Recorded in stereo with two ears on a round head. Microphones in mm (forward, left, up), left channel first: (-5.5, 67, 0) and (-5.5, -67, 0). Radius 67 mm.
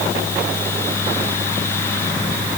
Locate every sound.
Only background noise.